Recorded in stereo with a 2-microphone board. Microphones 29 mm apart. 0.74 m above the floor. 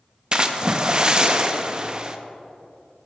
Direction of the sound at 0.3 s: 30° right (ahead or behind).